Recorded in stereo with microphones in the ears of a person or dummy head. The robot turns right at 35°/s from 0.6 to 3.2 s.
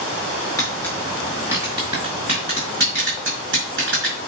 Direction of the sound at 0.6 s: 15° left (ahead or behind).